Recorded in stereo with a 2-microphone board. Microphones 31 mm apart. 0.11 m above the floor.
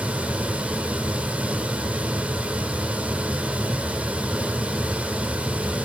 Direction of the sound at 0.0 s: 40° right (ahead or behind).